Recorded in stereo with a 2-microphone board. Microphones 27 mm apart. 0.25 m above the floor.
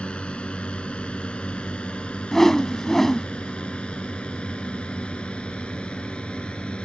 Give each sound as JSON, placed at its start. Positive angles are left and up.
{"t": 0.0, "sound": "a drone", "side_deg": 45}
{"t": 2.3, "sound": "a whoosh", "side_deg": 15}